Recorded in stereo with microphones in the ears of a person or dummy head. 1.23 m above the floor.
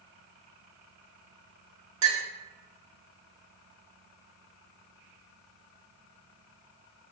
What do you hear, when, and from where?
2.0 s a clink: 70° right (ahead or behind), 1.1 m